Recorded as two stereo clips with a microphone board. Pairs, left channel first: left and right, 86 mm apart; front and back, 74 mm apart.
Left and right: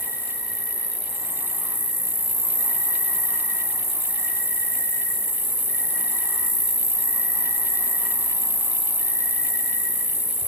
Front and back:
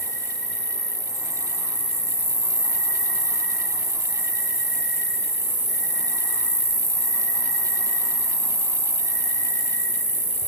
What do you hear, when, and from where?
0.0 s an insect: 75° right, 1.8 m